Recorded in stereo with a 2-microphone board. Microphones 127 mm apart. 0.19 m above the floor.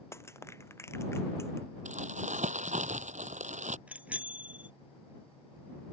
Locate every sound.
0.1 s crushing: 20° left (ahead or behind)
1.9 s crumpling: 75° right (ahead or behind)
3.9 s a bicycle bell: 10° right (ahead or behind)